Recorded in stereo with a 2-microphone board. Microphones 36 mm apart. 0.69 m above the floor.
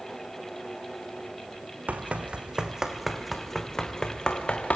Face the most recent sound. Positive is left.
turn(degrees=30)  # may be behind; listen again after turning